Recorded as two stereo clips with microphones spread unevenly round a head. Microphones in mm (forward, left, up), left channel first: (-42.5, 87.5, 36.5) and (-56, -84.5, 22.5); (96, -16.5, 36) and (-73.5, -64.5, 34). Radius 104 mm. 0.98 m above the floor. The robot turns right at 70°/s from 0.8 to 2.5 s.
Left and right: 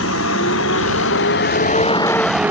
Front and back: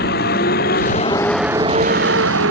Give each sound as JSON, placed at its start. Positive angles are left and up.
{"t": 0.0, "sound": "a vehicle", "azimuth_deg": 60}